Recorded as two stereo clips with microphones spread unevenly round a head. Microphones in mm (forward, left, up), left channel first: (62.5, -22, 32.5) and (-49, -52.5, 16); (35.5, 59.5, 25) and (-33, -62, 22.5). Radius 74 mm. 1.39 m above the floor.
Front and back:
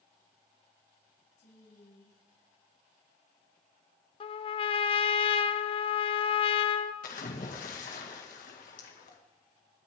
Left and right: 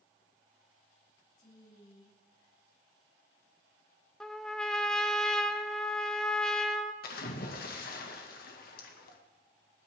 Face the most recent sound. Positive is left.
turn(degrees=40)